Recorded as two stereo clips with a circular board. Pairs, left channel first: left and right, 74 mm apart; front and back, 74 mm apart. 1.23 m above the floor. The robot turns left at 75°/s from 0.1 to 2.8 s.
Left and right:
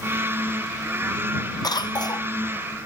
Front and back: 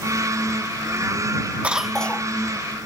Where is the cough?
110° left; by 2.3 s 60° left.